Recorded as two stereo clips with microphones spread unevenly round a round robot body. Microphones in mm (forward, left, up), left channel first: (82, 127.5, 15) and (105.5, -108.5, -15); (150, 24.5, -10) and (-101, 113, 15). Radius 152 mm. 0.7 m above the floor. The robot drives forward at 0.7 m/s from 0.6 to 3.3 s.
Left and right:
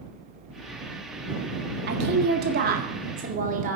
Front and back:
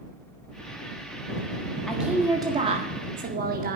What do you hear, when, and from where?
1.9 s a woman speaking: 105° right, 1.5 m; by 3.8 s 140° right, 2.0 m